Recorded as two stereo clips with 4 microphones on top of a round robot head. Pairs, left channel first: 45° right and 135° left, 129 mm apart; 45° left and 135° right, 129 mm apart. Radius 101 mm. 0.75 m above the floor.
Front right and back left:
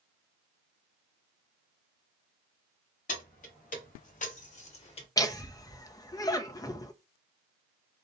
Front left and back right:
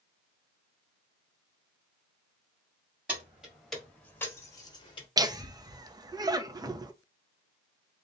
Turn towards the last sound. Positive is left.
turn(degrees=-90)